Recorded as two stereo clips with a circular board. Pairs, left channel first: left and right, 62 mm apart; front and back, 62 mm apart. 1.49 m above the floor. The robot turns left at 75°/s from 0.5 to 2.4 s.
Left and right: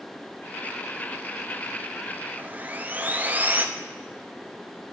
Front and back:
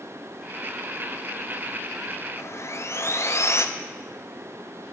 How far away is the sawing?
About 0.7 m.